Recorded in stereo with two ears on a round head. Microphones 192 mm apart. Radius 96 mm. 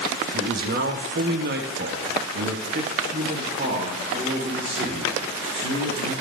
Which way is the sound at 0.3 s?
45° right (ahead or behind).